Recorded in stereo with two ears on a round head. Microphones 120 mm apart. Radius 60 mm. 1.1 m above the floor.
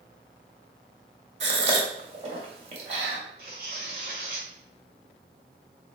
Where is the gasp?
50° right (ahead or behind), 1.5 m.